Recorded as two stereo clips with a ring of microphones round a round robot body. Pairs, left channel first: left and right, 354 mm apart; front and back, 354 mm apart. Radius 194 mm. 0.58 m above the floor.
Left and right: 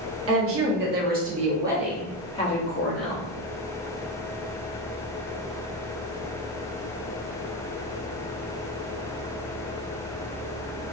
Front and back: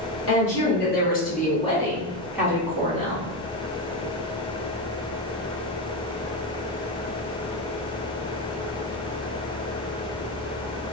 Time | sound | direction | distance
0.3 | a woman speaking | 50° right | 1.1 m